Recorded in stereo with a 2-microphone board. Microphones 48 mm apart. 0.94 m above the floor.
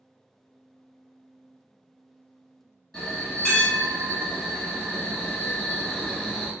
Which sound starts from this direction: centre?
A bell, at 2.9 s.